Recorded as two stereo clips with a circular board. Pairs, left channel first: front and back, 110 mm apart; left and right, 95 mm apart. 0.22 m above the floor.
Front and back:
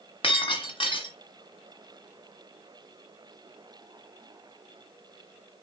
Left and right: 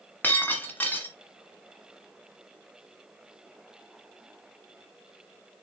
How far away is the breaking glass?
About 1.5 m.